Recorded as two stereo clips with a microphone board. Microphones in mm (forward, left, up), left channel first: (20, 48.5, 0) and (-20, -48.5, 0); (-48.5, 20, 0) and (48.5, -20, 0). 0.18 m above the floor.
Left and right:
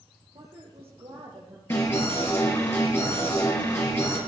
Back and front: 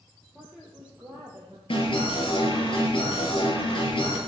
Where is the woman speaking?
110° right, 4.5 m; by 1.6 s 90° right, 4 m.